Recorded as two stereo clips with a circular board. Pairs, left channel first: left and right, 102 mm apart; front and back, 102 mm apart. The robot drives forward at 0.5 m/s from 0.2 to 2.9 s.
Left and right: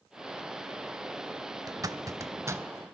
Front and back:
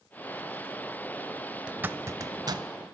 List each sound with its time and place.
1.7 s a zipper: 105° right, 0.6 m; by 2.6 s 145° right, 0.9 m